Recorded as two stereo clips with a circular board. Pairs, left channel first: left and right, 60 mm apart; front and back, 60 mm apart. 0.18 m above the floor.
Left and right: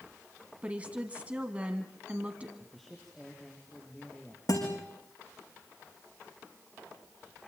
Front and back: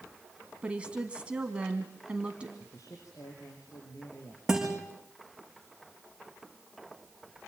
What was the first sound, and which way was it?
A woman speaking, 130° right.